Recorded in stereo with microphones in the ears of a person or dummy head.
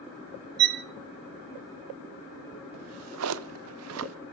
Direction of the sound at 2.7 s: 80° right.